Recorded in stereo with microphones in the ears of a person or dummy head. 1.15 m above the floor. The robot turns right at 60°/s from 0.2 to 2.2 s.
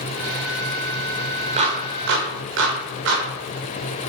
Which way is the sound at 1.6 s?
30° right (ahead or behind).